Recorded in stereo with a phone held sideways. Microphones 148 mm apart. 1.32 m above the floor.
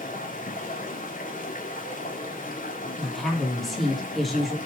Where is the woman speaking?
Centre (ahead or behind), 2.5 m.